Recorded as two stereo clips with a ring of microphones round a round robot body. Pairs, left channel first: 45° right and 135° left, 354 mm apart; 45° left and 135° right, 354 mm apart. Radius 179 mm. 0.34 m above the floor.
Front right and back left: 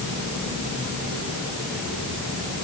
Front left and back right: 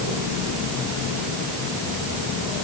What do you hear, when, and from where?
Only background noise.